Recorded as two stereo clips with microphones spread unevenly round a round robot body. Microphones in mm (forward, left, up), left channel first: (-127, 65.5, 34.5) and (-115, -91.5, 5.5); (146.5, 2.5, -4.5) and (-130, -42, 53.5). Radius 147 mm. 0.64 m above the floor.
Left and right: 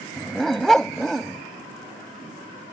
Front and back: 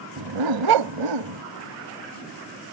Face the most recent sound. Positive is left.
turn(degrees=180)